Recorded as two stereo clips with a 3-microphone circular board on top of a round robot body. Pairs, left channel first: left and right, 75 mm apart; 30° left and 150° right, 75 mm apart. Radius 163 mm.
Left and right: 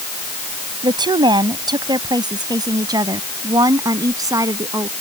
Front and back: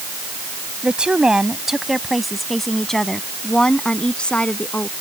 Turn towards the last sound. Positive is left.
turn(degrees=-45)